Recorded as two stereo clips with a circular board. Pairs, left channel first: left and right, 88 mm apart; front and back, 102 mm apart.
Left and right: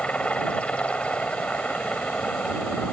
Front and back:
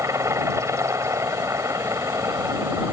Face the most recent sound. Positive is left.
turn(degrees=155)